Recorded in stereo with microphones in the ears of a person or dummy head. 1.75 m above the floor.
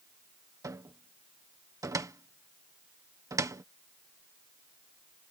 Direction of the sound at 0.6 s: 15° right (ahead or behind).